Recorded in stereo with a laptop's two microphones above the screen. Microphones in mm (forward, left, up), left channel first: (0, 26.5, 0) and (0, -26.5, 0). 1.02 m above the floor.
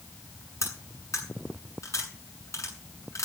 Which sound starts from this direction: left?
Cutlery clinking, at 0.6 s.